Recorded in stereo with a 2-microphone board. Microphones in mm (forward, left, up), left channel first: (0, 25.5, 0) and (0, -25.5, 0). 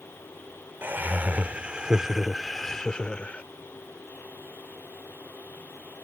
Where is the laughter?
45° right (ahead or behind); by 3.4 s 25° left (ahead or behind).